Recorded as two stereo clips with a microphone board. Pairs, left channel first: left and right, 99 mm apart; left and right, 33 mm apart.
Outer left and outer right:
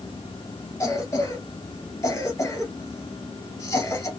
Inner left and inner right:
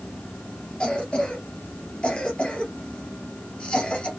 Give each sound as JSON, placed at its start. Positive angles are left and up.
{"t": 0.8, "sound": "a cough", "side_deg": 30, "distance_m": 3.0}